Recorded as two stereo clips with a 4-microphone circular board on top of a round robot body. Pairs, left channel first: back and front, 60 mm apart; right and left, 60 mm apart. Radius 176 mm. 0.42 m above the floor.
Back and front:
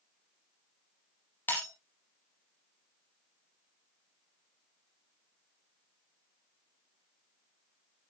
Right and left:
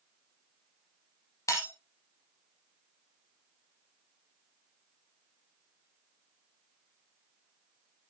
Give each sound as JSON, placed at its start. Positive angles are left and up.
{"t": 1.5, "sound": "breaking glass", "azimuth_deg": -120, "distance_m": 5.5}